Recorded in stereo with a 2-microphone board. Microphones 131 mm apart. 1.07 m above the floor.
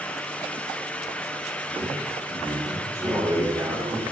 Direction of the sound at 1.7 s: 25° right (ahead or behind).